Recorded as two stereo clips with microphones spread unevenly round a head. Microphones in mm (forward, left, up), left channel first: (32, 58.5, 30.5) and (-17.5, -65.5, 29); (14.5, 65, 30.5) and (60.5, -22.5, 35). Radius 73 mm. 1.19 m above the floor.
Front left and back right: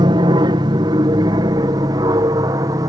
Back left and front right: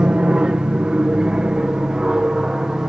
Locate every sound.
0.0 s an aircraft: 140° right; by 2.9 s 145° right